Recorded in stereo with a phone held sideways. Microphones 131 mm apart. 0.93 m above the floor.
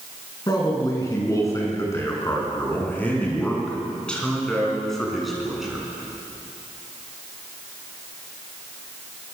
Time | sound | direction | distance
0.5 | a man speaking | 30° left (ahead or behind) | 9 m